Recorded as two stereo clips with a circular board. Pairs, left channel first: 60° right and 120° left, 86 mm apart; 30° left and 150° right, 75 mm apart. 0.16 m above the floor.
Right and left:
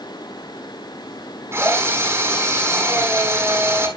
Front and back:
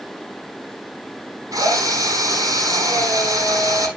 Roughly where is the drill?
Behind.